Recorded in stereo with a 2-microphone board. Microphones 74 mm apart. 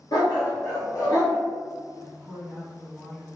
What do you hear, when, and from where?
0.1 s a dog barking: 60° left (ahead or behind), 1.5 m; by 1.4 s 45° left (ahead or behind), 2.0 m
2.0 s a woman speaking: centre (ahead or behind), 1.9 m